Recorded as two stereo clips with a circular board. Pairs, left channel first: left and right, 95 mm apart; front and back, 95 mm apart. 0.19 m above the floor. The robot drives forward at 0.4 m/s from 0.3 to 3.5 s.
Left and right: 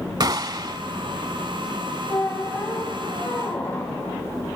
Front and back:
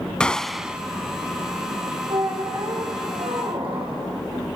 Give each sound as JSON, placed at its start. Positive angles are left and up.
{"t": 0.2, "sound": "a gunshot", "azimuth_deg": -75, "distance_m": 0.5}
{"t": 2.1, "sound": "a squeak", "azimuth_deg": 155, "distance_m": 4.5}